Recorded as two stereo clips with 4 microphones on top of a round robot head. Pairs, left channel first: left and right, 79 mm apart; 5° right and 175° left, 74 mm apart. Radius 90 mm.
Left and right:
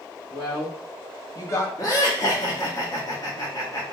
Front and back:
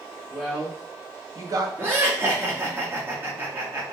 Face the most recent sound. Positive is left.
turn(degrees=120)